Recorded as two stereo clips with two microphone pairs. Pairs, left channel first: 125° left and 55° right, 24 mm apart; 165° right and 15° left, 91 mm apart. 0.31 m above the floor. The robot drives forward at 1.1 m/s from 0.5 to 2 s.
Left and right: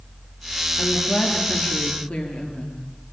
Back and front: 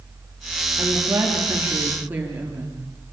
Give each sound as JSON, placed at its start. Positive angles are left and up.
{"t": 0.8, "sound": "a woman speaking", "azimuth_deg": 75, "distance_m": 6.5}